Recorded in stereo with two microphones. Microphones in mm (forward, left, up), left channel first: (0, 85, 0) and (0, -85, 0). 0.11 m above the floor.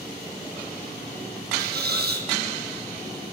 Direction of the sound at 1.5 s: 70° right (ahead or behind).